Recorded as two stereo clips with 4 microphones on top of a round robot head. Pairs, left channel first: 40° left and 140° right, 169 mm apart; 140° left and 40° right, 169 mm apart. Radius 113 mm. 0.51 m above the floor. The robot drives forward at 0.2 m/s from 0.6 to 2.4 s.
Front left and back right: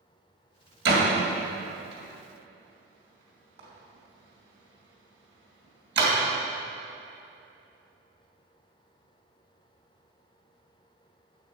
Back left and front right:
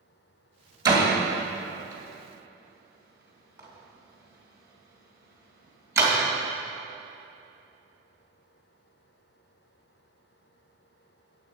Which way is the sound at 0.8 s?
110° right.